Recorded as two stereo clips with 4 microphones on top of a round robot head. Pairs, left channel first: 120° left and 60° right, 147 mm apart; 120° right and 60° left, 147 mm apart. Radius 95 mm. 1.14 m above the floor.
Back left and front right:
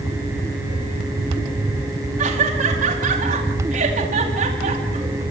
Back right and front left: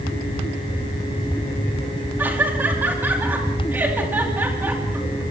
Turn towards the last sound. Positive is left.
turn(degrees=-20)